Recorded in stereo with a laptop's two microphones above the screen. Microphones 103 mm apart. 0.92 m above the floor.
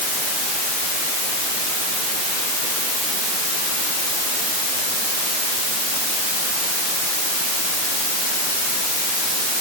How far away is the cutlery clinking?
No cutlery clinking in this recording.